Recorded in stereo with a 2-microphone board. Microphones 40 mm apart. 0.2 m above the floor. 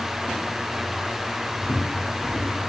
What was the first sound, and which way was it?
Footsteps, 25° left (ahead or behind).